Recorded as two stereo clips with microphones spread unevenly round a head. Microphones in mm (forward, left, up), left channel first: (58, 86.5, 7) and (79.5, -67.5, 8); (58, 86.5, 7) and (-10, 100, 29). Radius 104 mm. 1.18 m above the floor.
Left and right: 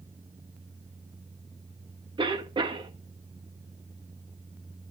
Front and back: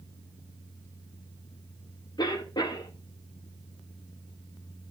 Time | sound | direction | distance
2.2 | a cough | 20° right | 1.8 m